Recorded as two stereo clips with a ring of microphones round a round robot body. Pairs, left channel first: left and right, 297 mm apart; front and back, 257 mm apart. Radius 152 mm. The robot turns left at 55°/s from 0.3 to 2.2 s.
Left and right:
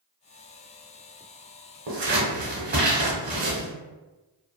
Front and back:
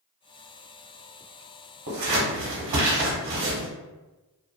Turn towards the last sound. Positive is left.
turn(degrees=-155)